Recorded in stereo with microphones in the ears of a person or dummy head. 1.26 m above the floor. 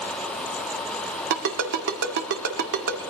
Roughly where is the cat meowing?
No cat meowing in this recording.